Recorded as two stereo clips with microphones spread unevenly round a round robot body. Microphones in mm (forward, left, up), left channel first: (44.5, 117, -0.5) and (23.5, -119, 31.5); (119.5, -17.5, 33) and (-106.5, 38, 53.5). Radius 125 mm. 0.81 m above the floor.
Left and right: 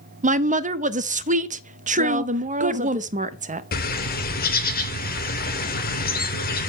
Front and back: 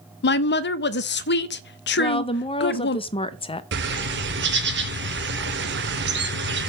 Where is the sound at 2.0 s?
50° right, 0.7 m.